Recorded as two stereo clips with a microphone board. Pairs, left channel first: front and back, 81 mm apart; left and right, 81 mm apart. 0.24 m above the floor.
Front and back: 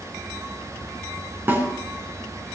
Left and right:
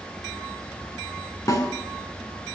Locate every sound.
1.5 s a snare drum: 125° left, 3 m